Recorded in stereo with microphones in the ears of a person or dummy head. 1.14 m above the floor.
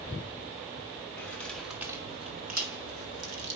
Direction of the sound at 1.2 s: 10° left (ahead or behind).